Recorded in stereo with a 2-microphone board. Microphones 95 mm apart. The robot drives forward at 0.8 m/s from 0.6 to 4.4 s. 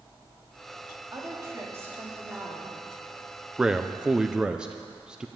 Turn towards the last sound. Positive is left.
turn(degrees=-10)  # may be behind; listen again after turning